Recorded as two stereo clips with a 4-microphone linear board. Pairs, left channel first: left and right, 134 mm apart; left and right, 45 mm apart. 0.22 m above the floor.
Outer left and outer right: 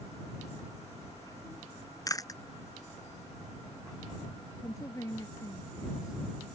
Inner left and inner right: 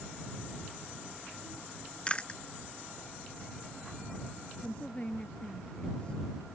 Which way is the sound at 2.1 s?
25° left (ahead or behind).